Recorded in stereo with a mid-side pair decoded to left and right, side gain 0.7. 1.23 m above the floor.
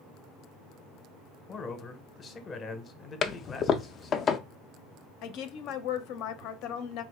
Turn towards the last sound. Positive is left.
turn(degrees=65)